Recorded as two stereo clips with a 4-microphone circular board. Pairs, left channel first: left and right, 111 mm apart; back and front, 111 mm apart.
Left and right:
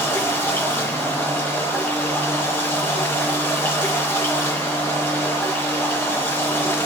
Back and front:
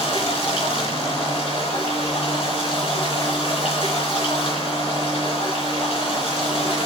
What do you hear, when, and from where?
0.0 s running water: 155° left, 3.5 m